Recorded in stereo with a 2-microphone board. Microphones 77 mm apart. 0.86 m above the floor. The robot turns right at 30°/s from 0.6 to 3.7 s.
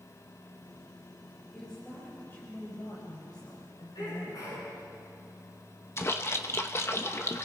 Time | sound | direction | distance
1.5 | a woman speaking | 5° left | 4.5 m
4.0 | a sneeze | 60° left (ahead or behind) | 9 m
6.0 | a splash | 35° left (ahead or behind) | 1.1 m